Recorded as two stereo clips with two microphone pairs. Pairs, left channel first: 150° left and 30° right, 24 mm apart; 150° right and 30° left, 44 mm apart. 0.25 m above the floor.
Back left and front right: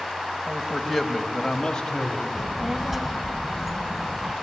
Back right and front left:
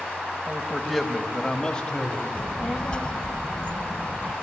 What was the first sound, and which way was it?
A man speaking, 15° right.